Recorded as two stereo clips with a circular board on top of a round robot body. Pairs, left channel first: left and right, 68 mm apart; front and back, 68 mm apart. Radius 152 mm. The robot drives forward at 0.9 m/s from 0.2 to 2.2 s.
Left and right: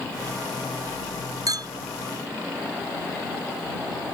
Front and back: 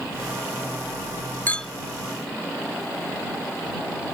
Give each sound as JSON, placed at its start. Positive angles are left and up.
{"t": 1.5, "sound": "a clink", "azimuth_deg": -65}